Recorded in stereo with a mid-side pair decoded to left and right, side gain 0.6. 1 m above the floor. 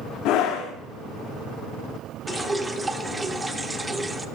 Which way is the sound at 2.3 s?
15° right.